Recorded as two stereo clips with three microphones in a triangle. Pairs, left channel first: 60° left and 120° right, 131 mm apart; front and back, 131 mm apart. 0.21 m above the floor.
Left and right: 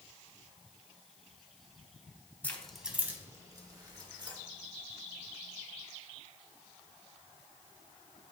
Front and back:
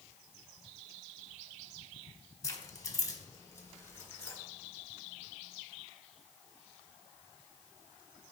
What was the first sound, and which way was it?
Keys jangling, straight ahead.